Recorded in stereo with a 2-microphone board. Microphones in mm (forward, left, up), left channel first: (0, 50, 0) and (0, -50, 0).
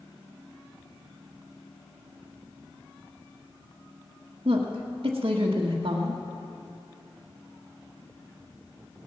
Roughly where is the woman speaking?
Right.